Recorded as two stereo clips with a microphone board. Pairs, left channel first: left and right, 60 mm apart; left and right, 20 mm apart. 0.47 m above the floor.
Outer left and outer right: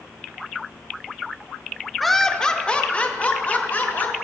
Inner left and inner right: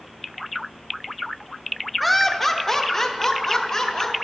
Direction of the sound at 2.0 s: Centre (ahead or behind).